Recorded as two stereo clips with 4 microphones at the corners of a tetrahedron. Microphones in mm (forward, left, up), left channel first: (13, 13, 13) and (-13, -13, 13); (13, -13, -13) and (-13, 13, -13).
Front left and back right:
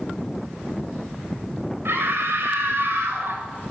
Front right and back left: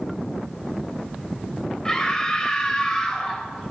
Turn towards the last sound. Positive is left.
turn(degrees=-115)